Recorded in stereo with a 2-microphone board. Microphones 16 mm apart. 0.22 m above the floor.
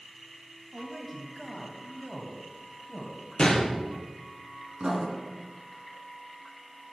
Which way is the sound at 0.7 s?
15° right (ahead or behind).